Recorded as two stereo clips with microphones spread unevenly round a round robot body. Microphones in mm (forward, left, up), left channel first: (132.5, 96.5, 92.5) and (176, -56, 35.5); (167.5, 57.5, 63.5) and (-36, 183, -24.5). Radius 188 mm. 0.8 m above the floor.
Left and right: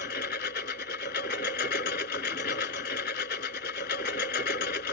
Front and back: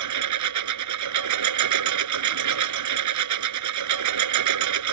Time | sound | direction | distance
0.0 | a lawn mower | 165° left | ?